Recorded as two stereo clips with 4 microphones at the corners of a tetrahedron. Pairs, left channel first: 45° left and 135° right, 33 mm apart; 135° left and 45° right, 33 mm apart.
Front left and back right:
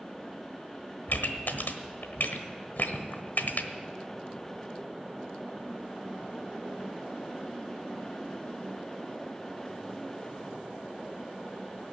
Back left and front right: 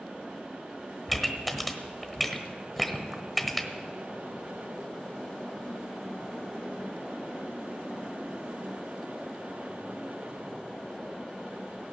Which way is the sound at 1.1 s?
50° left.